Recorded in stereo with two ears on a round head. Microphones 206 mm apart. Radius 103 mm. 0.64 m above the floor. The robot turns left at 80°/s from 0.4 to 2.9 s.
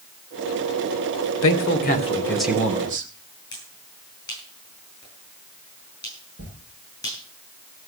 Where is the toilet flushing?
45° right (ahead or behind), 6 m.